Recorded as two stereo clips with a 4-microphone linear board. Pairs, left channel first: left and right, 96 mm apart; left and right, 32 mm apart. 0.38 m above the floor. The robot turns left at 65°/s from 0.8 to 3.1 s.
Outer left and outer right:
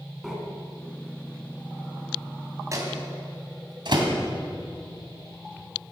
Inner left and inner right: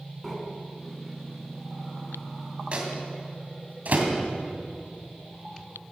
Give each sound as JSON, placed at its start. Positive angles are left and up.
{"t": 0.2, "sound": "breathing", "side_deg": -5, "distance_m": 3.0}
{"t": 2.7, "sound": "a microwave", "side_deg": -35, "distance_m": 2.5}